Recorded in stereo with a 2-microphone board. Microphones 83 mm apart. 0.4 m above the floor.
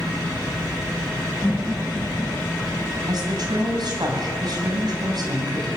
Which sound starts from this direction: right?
A woman speaking, at 3.1 s.